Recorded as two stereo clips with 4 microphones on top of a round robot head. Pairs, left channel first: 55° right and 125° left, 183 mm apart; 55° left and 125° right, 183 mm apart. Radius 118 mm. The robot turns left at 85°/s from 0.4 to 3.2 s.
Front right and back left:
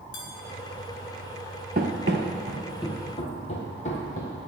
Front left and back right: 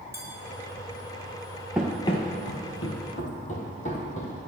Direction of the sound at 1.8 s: 150° left.